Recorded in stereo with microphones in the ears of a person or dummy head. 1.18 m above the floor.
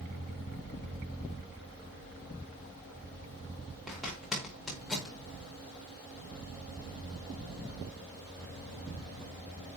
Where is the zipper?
Centre (ahead or behind), 5 m.